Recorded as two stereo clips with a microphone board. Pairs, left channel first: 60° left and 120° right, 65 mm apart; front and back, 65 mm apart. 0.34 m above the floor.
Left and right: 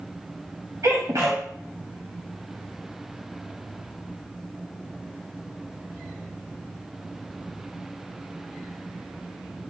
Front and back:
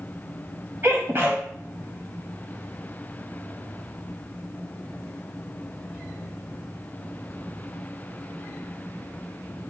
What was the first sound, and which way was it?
A sneeze, 130° right.